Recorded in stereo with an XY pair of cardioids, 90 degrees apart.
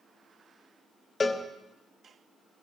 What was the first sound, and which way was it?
A cowbell, 35° left.